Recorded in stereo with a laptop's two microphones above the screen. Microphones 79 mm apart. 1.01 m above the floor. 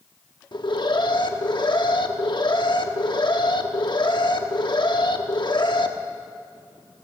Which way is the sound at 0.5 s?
70° left (ahead or behind).